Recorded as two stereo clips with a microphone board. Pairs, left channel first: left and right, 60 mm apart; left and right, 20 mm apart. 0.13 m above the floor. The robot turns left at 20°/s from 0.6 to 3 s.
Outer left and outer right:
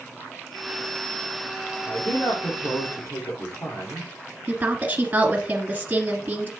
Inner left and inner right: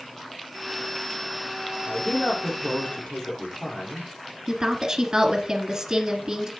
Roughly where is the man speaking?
Left.